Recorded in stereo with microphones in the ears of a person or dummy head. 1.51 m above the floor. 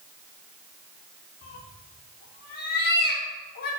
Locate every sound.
1.4 s a cat meowing: 50° left (ahead or behind), 1.3 m